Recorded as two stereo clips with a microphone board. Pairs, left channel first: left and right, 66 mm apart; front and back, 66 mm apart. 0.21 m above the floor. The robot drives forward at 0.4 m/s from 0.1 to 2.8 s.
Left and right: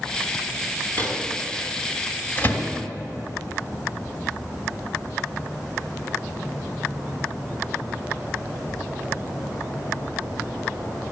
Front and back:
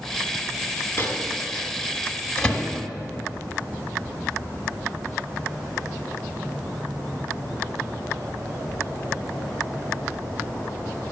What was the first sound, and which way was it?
A microwave, 40° left.